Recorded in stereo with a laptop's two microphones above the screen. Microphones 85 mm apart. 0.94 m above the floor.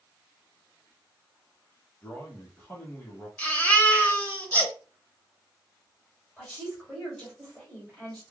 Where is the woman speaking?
5° left (ahead or behind), 2 m.